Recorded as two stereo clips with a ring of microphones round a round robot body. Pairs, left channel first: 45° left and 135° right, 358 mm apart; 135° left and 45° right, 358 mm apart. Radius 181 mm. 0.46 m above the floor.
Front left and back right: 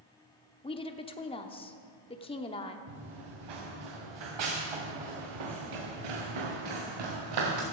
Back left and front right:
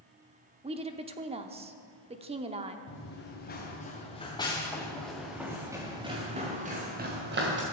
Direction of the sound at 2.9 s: 165° right.